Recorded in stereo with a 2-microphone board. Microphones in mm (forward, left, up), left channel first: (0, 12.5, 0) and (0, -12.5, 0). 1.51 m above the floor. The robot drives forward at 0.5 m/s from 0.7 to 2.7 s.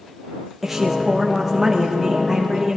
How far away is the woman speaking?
About 0.7 m.